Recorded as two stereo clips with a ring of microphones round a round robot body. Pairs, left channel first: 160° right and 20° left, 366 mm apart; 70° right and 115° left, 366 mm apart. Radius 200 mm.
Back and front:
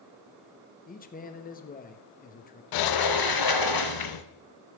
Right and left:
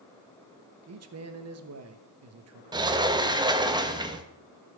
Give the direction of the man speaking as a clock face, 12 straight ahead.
7 o'clock.